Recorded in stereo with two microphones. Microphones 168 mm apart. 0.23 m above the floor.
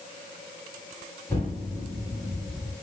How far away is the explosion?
About 1.9 m.